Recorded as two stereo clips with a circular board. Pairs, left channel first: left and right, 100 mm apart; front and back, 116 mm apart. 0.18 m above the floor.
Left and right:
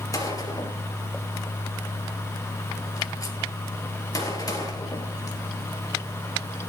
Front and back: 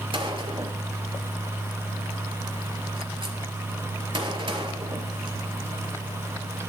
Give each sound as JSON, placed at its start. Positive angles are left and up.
{"t": 0.1, "sound": "a gunshot", "azimuth_deg": 140, "distance_m": 3.0}